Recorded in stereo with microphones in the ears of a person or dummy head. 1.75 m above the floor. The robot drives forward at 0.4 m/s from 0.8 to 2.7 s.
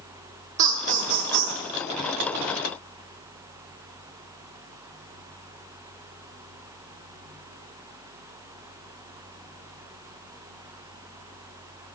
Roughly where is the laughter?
Right.